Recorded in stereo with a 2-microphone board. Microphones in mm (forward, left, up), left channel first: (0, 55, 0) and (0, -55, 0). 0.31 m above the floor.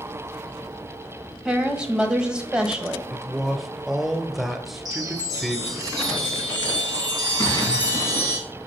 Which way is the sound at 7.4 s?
30° left (ahead or behind).